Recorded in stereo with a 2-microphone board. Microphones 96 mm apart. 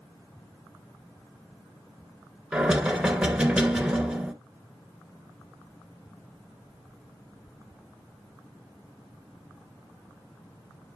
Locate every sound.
2.5 s knocking: 10° right (ahead or behind), 0.8 m